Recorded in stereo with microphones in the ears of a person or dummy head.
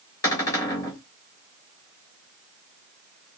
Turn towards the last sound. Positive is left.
turn(degrees=20)  # may be behind; listen again after turning